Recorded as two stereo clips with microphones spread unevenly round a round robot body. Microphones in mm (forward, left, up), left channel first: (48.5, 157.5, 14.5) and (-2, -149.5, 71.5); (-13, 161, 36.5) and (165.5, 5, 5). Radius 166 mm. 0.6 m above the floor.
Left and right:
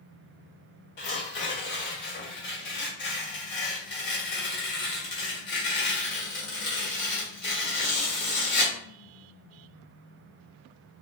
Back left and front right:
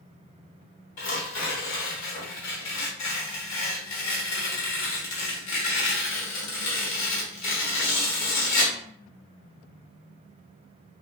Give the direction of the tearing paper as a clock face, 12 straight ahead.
7 o'clock.